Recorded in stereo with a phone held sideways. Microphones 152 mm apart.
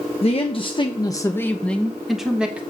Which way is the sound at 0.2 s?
40° left (ahead or behind).